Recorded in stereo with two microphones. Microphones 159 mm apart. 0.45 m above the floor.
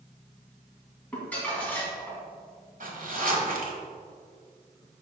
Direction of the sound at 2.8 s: 60° right (ahead or behind).